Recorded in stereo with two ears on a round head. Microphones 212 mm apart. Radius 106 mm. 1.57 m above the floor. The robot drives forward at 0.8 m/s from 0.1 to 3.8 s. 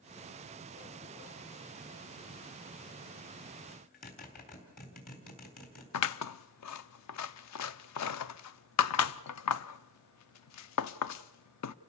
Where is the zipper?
40° left (ahead or behind), 4 m.